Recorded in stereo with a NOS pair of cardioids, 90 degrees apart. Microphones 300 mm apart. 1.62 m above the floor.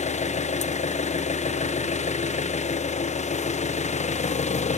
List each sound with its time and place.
0.0 s an engine running: 25° left, 1.0 m